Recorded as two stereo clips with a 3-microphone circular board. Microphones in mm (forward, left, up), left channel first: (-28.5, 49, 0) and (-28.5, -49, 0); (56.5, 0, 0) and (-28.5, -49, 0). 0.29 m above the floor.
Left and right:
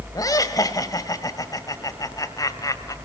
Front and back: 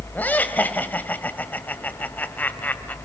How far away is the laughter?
About 1.6 m.